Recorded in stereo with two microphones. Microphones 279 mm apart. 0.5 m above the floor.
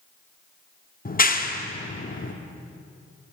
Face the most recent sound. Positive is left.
turn(degrees=30)  # may be behind; listen again after turning